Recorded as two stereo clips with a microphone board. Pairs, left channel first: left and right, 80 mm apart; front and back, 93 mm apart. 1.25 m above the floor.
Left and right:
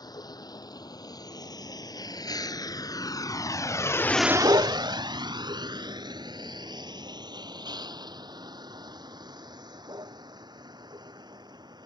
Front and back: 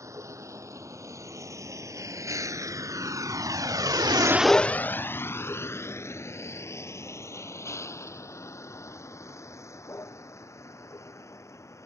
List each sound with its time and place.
0.0 s a vehicle: 125° left; by 11.9 s 60° right